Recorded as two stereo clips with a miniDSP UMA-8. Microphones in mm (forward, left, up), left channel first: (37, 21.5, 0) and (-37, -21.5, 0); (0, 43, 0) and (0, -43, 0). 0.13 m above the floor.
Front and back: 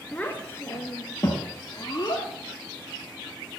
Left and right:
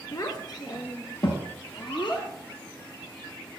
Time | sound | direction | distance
0.1 | a child speaking | 100° left | 0.8 m